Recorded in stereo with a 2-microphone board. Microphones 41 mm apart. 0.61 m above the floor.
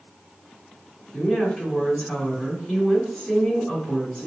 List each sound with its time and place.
1.1 s a woman speaking: 15° left (ahead or behind), 1.9 m